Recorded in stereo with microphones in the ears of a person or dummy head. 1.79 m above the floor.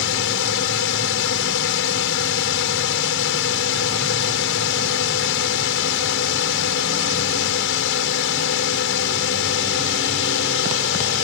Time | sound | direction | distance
0.0 | a drone | 65° left (ahead or behind) | ?